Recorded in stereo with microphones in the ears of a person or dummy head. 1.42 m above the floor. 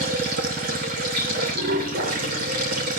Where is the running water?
50° right (ahead or behind), 3.5 m.